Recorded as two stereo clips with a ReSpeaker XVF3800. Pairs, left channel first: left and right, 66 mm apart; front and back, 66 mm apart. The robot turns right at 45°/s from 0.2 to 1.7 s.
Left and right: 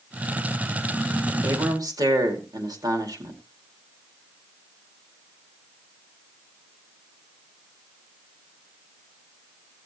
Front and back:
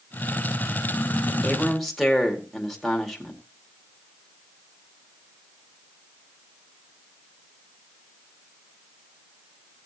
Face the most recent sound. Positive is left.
turn(degrees=-90)